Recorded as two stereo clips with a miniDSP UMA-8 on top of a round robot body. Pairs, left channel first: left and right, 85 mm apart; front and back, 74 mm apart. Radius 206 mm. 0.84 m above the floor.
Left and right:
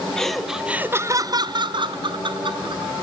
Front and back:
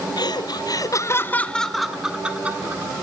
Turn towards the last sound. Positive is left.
turn(degrees=-115)